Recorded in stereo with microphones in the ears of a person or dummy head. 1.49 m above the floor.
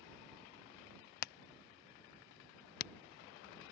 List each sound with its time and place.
1.2 s hammering: 50° left (ahead or behind)